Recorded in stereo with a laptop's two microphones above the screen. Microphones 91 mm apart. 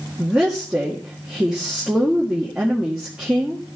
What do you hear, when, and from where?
0.2 s a woman speaking: 5° right (ahead or behind), 1.8 m